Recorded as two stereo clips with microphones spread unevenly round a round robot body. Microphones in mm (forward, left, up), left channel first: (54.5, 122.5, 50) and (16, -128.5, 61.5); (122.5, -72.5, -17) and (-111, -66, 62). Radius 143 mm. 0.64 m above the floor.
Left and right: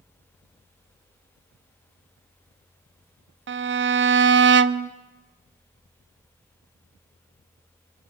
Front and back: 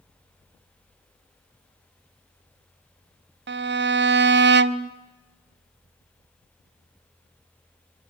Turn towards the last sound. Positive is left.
turn(degrees=-130)